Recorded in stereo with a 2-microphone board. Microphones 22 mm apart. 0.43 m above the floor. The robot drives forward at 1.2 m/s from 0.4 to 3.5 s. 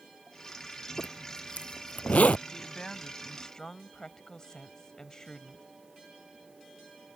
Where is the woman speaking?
20° left (ahead or behind); by 5.6 s 25° left (ahead or behind).